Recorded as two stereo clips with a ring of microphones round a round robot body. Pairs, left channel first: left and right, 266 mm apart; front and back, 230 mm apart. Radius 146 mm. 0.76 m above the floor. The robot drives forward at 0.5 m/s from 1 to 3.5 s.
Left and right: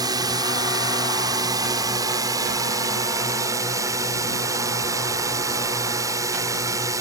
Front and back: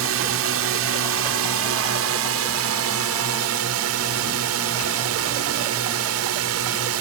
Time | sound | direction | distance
0.0 | a drone | 165° right | ?